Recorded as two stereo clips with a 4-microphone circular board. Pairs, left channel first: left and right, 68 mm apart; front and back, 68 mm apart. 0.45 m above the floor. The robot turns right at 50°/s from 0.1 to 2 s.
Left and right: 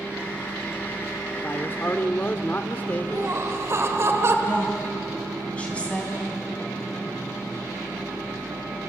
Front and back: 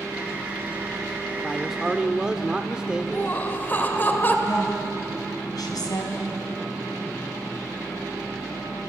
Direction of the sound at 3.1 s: 55° right.